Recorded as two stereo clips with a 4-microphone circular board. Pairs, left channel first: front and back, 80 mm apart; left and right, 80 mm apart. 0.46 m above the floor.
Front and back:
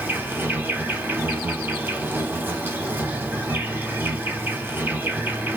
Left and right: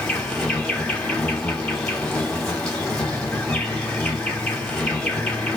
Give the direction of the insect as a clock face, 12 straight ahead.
7 o'clock.